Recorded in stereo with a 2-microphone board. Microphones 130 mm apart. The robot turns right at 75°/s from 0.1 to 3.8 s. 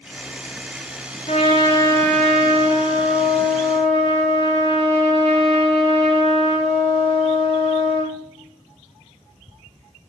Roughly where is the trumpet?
Left.